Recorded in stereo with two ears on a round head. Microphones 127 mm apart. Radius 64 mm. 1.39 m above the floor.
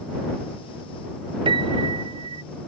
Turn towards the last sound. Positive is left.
turn(degrees=-35)  # may be behind; listen again after turning